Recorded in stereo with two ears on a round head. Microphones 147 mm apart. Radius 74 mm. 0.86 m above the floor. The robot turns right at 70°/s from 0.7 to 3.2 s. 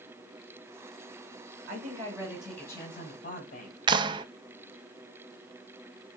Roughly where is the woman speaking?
Ahead right.